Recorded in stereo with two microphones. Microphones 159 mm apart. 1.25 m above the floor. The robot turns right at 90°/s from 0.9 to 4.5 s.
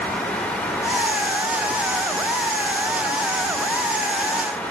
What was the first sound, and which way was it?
Only background noise.